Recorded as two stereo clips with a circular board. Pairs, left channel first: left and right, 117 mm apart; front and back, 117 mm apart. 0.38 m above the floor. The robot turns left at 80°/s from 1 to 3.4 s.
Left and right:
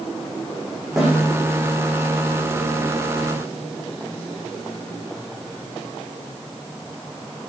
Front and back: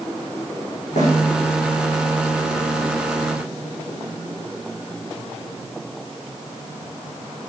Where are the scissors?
I don't hear scissors.